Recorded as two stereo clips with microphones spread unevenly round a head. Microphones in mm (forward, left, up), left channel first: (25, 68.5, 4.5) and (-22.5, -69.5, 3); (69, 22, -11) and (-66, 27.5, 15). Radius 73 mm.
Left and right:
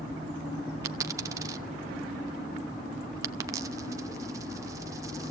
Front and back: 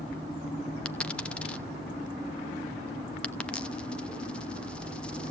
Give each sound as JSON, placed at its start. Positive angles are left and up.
{"t": 0.8, "sound": "a dropped coin", "azimuth_deg": -105, "distance_m": 0.8}